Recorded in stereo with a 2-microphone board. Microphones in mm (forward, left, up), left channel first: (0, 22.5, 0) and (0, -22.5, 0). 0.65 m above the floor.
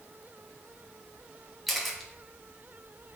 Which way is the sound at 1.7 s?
Centre (ahead or behind).